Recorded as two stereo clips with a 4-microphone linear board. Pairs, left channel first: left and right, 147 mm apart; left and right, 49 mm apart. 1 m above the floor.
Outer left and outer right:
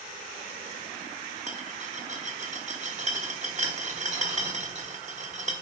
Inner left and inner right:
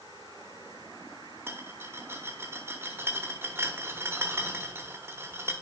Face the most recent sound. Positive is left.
turn(degrees=-55)  # may be behind; listen again after turning